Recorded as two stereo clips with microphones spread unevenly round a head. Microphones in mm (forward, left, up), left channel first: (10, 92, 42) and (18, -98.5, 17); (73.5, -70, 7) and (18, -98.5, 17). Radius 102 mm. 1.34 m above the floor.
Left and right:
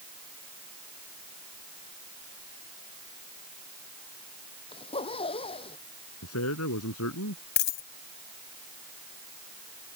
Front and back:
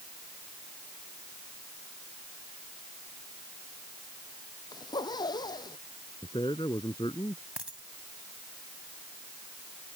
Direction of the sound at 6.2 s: 85° left.